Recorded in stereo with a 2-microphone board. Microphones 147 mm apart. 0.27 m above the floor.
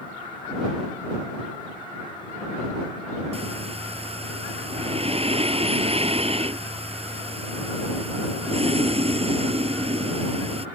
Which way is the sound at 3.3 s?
45° right (ahead or behind).